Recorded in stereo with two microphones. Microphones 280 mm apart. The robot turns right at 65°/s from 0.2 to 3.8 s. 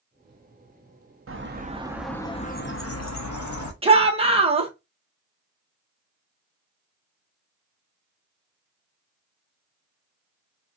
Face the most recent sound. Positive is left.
turn(degrees=-20)  # may be behind; listen again after turning